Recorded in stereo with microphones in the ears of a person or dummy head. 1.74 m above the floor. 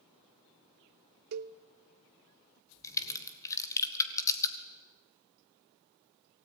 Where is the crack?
15° left (ahead or behind), 1.8 m.